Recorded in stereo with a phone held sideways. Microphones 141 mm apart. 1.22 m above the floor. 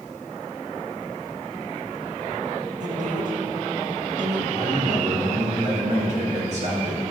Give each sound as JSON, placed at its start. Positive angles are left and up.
{"t": 2.8, "sound": "a woman speaking", "side_deg": -60, "distance_m": 1.8}
{"t": 4.5, "sound": "a man speaking", "side_deg": -55, "distance_m": 3.0}